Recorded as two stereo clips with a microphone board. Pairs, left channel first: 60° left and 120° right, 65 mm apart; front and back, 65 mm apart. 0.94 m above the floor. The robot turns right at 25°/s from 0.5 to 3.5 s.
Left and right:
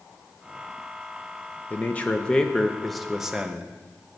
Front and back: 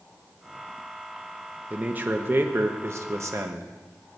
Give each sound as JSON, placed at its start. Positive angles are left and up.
{"t": 1.7, "sound": "a man speaking", "azimuth_deg": 120, "distance_m": 0.6}